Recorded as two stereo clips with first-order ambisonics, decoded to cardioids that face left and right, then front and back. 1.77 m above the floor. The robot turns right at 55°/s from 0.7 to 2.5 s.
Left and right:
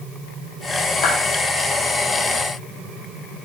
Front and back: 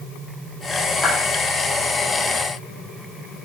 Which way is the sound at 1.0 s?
70° left.